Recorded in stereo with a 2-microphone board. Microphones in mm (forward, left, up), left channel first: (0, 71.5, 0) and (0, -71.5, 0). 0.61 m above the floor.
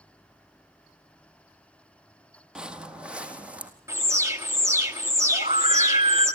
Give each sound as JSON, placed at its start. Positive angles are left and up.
{"t": 2.5, "sound": "footsteps", "side_deg": -5, "distance_m": 1.0}
{"t": 3.9, "sound": "an alarm", "side_deg": -20, "distance_m": 1.7}
{"t": 5.3, "sound": "a scream", "side_deg": -45, "distance_m": 3.0}